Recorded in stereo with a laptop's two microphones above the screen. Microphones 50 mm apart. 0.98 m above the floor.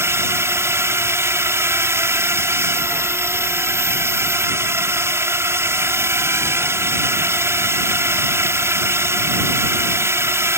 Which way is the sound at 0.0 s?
60° right (ahead or behind).